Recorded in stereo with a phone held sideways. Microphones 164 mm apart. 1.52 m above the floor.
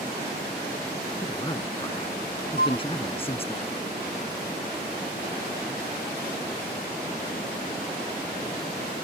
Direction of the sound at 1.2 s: 25° left (ahead or behind).